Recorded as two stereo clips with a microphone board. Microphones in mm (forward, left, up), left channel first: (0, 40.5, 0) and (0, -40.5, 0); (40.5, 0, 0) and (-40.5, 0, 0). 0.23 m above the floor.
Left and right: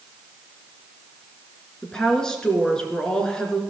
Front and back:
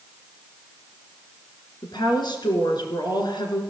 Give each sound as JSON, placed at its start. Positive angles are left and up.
{"t": 1.8, "sound": "a woman speaking", "azimuth_deg": 10, "distance_m": 3.0}